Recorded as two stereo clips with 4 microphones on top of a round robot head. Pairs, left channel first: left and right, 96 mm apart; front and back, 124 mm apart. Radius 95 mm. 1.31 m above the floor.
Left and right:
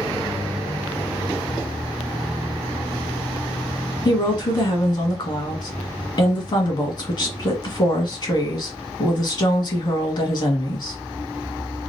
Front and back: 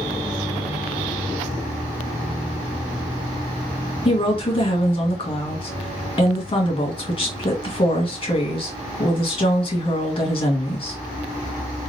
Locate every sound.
4.0 s a woman speaking: 50° left, 1.9 m